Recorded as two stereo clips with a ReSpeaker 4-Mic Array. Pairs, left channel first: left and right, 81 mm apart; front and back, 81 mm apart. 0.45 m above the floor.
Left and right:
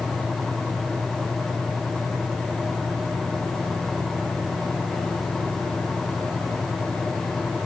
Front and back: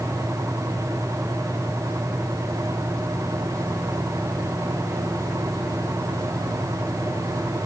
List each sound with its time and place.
Only background noise.